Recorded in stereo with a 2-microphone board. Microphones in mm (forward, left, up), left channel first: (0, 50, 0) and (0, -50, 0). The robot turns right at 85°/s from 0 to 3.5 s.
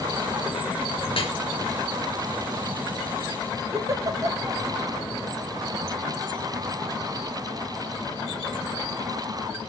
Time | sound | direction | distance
1.1 | dripping | 55° left (ahead or behind) | 4 m
3.7 | a giggle | 35° right (ahead or behind) | 0.9 m